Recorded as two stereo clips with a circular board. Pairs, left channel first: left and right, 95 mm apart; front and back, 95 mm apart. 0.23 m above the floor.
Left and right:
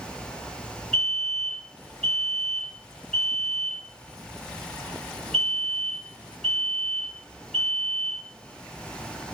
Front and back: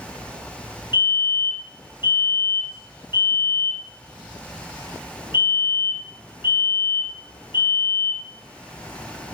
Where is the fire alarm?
5° left, 4 m.